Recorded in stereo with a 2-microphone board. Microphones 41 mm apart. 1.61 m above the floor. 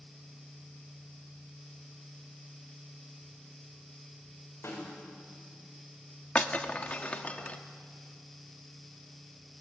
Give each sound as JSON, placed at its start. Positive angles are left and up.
{"t": 4.6, "sound": "a snare drum", "side_deg": 90, "distance_m": 8.0}
{"t": 6.3, "sound": "breaking glass", "side_deg": 30, "distance_m": 1.4}